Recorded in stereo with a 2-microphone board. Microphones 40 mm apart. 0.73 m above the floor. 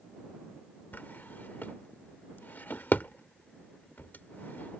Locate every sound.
0.9 s a drawer: 45° left (ahead or behind)